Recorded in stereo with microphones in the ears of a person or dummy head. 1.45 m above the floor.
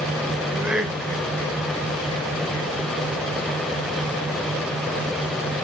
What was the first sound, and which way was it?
Laughter, 15° right (ahead or behind).